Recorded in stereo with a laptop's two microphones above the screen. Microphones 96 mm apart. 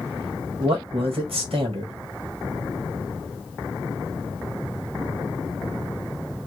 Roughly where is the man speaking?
Right.